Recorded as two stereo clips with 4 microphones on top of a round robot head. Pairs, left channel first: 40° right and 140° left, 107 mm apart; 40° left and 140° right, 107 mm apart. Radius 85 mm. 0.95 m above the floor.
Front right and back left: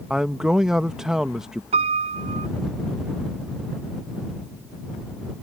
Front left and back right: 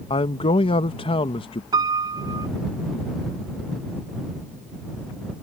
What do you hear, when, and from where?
0.1 s a man speaking: 55° left
1.7 s a piano: 165° left